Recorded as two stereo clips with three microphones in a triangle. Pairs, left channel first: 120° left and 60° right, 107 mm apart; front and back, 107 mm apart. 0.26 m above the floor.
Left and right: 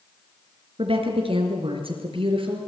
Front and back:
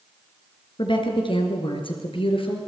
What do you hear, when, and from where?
0.8 s a woman speaking: 35° right, 3.5 m; by 2.7 s 30° right, 5 m